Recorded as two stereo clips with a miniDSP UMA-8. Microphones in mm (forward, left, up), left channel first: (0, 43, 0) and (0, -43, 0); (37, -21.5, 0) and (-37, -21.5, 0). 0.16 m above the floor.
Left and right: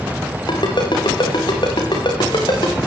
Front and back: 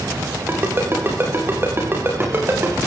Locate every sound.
0.5 s a ringtone: 120° left, 7 m